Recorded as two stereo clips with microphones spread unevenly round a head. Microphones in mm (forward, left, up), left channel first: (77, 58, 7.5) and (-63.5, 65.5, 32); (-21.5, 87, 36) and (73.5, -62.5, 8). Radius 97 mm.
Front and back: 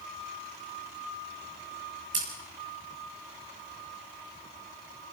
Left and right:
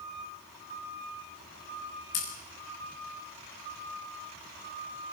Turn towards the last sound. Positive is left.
turn(degrees=150)